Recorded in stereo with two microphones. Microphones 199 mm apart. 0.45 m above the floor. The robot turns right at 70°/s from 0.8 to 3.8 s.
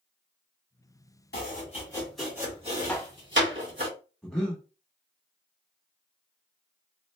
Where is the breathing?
5° left (ahead or behind), 1.0 m.